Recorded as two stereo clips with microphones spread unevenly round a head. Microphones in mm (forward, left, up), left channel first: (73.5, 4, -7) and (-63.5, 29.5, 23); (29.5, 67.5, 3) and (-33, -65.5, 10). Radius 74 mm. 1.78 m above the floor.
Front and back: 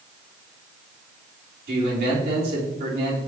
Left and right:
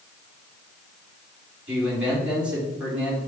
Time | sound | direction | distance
1.7 | a man speaking | 165° left | 3 m